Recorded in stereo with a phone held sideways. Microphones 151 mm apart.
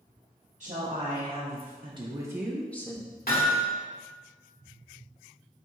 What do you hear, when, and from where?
0.6 s a woman speaking: 50° right (ahead or behind), 1.3 m; by 3.1 s 25° left (ahead or behind), 0.6 m
3.3 s hammering: 85° left, 1.5 m